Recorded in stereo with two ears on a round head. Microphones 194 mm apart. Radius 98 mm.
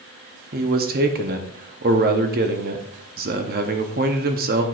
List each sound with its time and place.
0.5 s a man speaking: 40° right (ahead or behind), 0.9 m